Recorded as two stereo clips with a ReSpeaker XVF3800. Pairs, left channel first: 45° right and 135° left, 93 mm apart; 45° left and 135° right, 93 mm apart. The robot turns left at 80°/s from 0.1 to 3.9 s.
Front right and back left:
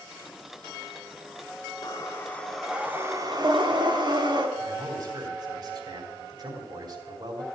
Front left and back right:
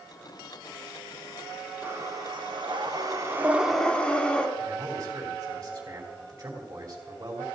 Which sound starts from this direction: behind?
A man speaking, at 4.6 s.